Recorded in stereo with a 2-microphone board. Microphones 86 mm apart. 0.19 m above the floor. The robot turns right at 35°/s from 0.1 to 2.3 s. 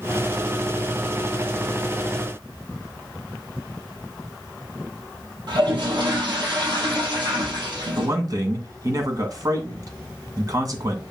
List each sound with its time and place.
5.5 s a toilet flushing: 60° right (ahead or behind), 3.5 m
8.0 s a man speaking: 45° right (ahead or behind), 2 m